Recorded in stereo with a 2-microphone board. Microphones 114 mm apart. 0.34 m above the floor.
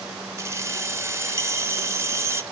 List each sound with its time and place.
0.4 s keys jangling: 25° right (ahead or behind), 0.6 m